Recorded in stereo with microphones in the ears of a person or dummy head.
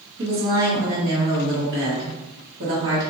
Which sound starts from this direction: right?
A woman speaking, at 0.2 s.